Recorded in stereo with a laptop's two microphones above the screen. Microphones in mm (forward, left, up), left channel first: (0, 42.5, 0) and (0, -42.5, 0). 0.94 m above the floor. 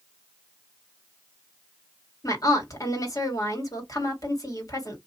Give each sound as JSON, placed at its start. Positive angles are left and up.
{"t": 2.2, "sound": "a woman speaking", "side_deg": 40, "distance_m": 2.0}